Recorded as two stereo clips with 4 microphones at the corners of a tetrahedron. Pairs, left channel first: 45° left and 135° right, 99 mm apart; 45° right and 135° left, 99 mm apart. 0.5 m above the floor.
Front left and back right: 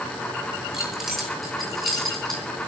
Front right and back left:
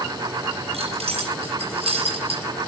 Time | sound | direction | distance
0.7 | keys jangling | 140° left | 8 m